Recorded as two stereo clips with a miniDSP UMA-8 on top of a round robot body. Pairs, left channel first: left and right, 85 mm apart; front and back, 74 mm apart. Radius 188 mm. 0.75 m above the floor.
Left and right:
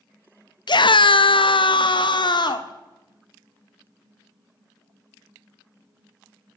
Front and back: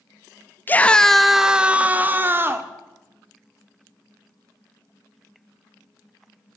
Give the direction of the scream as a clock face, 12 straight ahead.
10 o'clock.